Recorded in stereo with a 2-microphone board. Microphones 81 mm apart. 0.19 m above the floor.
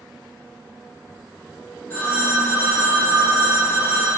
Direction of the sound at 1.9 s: 25° left (ahead or behind).